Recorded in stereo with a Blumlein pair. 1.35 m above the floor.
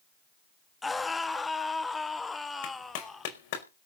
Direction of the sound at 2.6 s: 50° left.